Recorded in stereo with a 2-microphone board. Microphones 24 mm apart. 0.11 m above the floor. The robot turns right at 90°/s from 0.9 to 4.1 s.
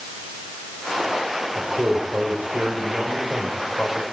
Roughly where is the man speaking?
Behind.